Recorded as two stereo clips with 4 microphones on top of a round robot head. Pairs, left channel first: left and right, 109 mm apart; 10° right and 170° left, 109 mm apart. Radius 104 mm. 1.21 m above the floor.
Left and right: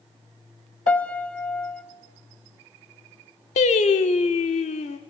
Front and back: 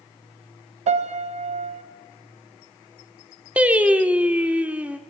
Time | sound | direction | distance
0.9 | a piano | 170° left | 1.5 m
3.6 | singing | 95° left | 1.2 m